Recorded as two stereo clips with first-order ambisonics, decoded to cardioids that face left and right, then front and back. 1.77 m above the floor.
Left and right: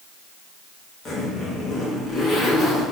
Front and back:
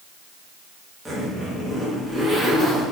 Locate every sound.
1.1 s a zipper: 85° left, 1.1 m